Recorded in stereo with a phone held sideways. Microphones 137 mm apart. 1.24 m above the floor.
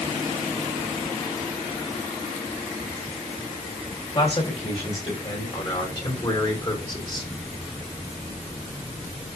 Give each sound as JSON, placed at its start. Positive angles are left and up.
{"t": 4.2, "sound": "a man speaking", "side_deg": 40, "distance_m": 8.0}